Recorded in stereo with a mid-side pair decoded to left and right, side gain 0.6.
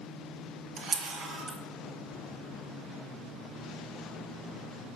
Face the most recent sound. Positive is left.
turn(degrees=-60)